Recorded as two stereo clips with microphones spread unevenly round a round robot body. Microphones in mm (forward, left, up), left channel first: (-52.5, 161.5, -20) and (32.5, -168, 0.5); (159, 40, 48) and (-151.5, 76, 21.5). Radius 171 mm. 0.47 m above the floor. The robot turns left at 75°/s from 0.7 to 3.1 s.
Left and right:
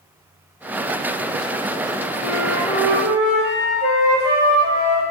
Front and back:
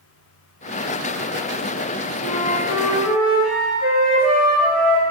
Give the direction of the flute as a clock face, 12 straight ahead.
10 o'clock.